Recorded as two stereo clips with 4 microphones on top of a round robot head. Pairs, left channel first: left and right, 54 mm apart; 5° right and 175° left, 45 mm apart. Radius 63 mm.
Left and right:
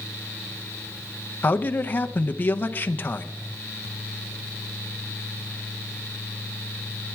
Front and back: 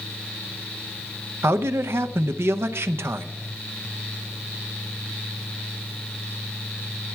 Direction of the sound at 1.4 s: 145° left.